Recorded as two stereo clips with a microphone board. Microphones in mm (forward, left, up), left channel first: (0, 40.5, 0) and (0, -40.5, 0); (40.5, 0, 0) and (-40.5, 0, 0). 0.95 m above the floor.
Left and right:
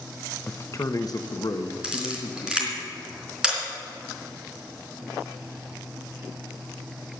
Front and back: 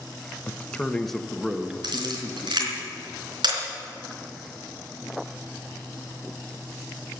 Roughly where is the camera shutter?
Behind.